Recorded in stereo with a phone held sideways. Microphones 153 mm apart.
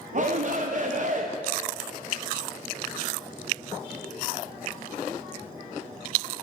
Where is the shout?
55° right (ahead or behind), 0.6 m.